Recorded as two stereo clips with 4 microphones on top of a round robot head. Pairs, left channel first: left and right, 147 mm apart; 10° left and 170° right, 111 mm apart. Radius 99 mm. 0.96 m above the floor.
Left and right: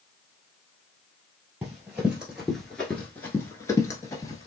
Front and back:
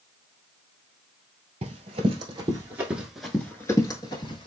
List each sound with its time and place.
1.6 s running footsteps: 170° right, 1.3 m; by 4.5 s 30° left, 1.2 m